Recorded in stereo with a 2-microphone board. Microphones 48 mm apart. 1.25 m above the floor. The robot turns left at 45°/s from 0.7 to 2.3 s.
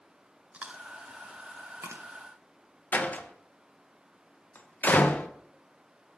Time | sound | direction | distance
0.5 | chewing | 25° right (ahead or behind) | 0.8 m
2.9 | a door slam | 35° left (ahead or behind) | 0.7 m